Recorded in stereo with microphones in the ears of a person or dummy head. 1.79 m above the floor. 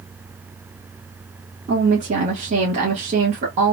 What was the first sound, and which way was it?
A woman speaking, 35° right (ahead or behind).